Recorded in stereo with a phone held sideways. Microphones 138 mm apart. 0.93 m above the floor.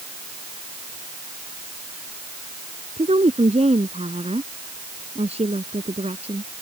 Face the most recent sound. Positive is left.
turn(degrees=-50)  # may be behind; listen again after turning